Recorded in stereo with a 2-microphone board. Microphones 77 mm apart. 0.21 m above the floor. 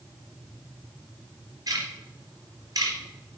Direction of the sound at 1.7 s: 50° right (ahead or behind).